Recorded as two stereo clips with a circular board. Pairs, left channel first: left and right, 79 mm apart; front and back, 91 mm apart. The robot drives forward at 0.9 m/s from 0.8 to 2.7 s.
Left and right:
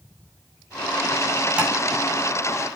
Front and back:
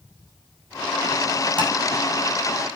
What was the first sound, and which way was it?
Tapping, 165° right.